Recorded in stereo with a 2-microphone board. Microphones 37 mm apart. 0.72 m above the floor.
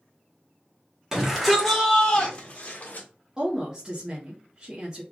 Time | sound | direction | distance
1.1 | a shout | 10° right (ahead or behind) | 1.8 m
3.4 | a woman speaking | 20° right (ahead or behind) | 1.2 m